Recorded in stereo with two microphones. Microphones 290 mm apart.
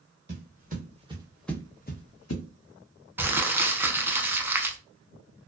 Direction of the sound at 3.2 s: 5° right (ahead or behind).